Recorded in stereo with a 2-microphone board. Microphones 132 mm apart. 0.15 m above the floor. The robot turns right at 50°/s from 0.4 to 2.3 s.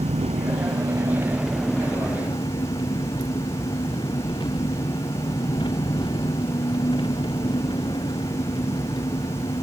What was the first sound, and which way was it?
An engine running, 60° right.